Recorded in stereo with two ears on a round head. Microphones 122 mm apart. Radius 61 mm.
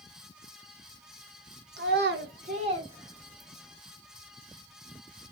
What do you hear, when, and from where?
1.8 s a child speaking: 80° right, 0.9 m; by 3.8 s 5° right (ahead or behind), 1.5 m